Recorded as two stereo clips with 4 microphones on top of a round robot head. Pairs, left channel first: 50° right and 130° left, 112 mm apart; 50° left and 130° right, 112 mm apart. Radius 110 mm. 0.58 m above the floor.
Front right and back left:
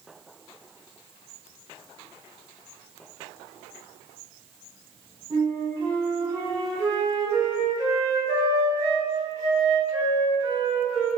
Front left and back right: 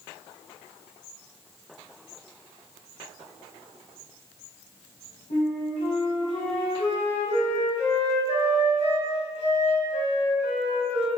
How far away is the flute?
About 0.9 m.